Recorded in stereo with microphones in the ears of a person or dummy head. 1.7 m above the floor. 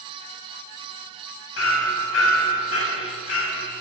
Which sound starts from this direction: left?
Hammering, at 1.6 s.